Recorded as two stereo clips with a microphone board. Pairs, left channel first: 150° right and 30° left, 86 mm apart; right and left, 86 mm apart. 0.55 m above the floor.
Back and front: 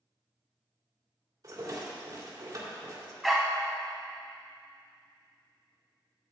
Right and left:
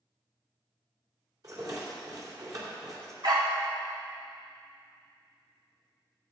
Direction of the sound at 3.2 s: 120° left.